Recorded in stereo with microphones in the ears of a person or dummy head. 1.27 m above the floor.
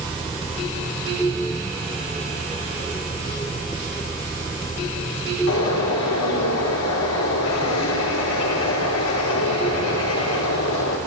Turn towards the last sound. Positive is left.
turn(degrees=75)  # may be behind; listen again after turning